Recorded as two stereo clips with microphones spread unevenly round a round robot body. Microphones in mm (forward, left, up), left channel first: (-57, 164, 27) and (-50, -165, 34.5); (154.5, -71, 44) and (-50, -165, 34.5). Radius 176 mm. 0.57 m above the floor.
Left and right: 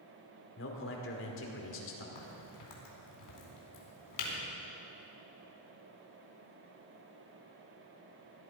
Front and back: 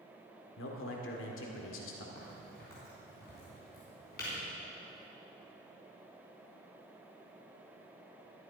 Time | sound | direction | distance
0.6 | a man speaking | 45° left | 2.0 m
2.1 | a crack | 90° left | 4 m